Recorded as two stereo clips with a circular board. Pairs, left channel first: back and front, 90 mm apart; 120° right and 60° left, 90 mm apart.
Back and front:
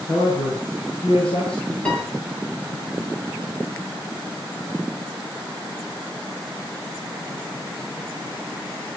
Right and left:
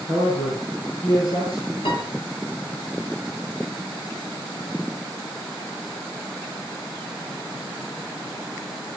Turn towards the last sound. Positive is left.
turn(degrees=-105)